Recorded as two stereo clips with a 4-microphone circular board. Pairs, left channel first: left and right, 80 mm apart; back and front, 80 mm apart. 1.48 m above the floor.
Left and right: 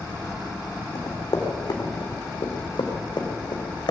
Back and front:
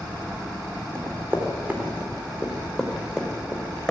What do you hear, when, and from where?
0.9 s running footsteps: 55° left, 4.5 m; by 3.9 s 100° left, 4 m